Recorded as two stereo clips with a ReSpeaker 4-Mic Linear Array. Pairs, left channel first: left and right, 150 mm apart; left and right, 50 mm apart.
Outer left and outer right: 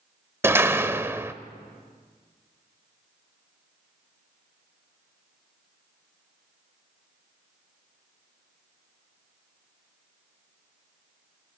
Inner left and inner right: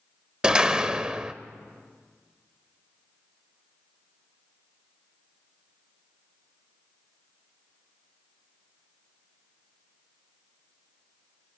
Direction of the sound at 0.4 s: 15° right (ahead or behind).